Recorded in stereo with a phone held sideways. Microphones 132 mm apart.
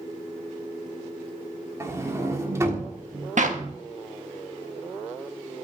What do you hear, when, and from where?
1.8 s a sliding door: 20° right (ahead or behind), 1.5 m
3.4 s a clap: 60° right (ahead or behind), 1.2 m